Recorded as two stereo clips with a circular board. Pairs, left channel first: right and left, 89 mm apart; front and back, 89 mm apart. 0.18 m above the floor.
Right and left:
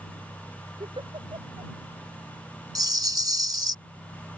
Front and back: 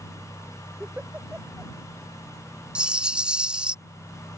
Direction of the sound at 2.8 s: 105° left.